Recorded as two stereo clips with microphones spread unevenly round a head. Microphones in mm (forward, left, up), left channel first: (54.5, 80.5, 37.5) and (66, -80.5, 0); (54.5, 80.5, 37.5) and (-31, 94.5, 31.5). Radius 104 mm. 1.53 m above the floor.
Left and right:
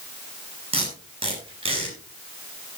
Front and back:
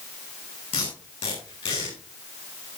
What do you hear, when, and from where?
0.7 s tape being pulled: 30° right, 7.5 m